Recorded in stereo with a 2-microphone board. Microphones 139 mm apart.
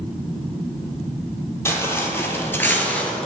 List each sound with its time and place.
1.6 s footsteps: 15° left (ahead or behind), 1.5 m; by 3.3 s 5° left (ahead or behind), 0.8 m